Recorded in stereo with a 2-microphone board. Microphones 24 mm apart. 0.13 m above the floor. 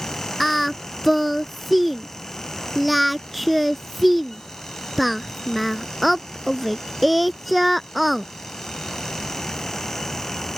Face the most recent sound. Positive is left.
turn(degrees=-5)  # may be behind; listen again after turning